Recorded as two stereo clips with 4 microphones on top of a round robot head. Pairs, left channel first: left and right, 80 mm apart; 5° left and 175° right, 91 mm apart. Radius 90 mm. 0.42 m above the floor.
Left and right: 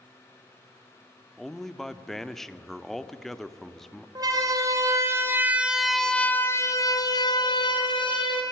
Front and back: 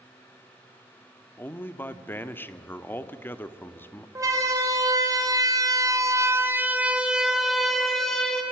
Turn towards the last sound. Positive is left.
turn(degrees=90)